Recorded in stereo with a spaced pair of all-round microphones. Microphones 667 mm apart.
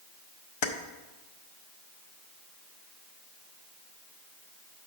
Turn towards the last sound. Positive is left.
turn(degrees=50)  # may be behind; listen again after turning